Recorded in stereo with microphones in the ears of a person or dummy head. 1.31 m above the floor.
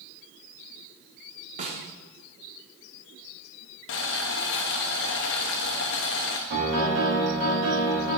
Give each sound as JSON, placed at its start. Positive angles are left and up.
{"t": 1.6, "sound": "a snare drum", "side_deg": -35, "distance_m": 0.8}
{"t": 3.9, "sound": "boiling", "side_deg": 65, "distance_m": 0.7}
{"t": 6.5, "sound": "a piano", "side_deg": -65, "distance_m": 1.8}